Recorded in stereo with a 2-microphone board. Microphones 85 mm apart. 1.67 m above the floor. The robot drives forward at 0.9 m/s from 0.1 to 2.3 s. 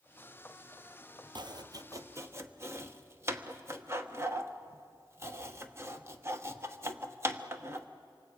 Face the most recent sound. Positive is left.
turn(degrees=-30)  # may be behind; listen again after turning